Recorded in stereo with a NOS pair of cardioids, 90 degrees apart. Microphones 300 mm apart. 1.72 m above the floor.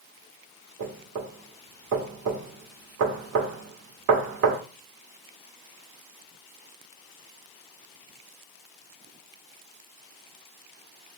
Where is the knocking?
55° right, 1.0 m.